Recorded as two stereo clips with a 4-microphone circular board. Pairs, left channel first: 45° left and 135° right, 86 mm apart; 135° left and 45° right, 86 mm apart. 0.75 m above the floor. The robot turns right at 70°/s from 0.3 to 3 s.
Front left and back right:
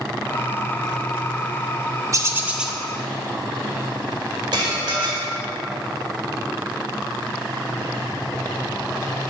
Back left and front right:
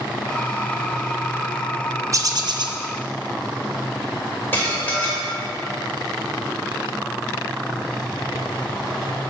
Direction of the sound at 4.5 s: 160° right.